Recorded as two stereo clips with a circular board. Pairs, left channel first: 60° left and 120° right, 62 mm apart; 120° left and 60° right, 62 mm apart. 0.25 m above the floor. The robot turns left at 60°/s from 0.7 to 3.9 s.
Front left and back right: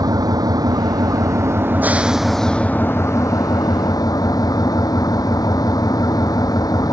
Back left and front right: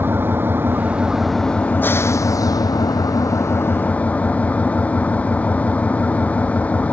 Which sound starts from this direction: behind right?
An engine running, at 0.0 s.